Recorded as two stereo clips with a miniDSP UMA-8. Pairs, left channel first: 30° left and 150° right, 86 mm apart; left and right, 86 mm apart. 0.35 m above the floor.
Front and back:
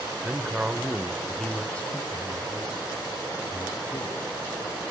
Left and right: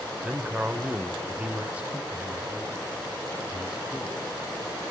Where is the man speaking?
125° right, 1.2 m; by 4.2 s 10° right, 2.5 m.